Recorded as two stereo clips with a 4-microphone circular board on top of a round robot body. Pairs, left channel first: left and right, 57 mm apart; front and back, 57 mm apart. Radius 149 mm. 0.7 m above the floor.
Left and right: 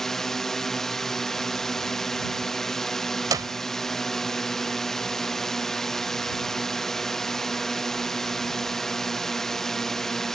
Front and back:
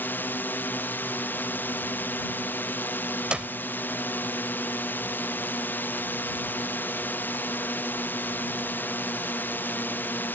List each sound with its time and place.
0.0 s a drone: 10° left
3.3 s a clap: 105° right